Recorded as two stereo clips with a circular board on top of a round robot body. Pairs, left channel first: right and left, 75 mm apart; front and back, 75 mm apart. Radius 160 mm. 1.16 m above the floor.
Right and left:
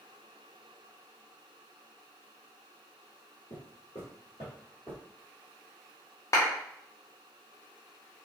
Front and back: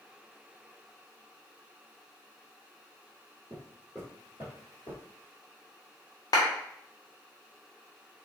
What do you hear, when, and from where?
3.5 s footsteps: 120° right, 1.4 m; by 5.0 s 15° right, 1.5 m
6.3 s a clap: 40° right, 0.7 m